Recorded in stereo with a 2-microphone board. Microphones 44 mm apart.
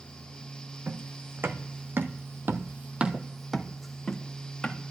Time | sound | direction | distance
0.9 | footsteps | 50° right (ahead or behind) | 1.5 m